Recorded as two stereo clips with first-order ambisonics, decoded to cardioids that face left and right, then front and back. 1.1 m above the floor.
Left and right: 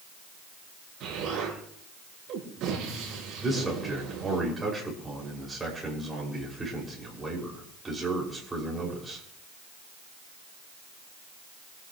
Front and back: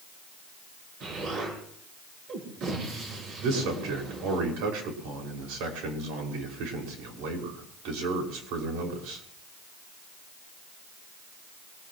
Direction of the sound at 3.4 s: 175° right.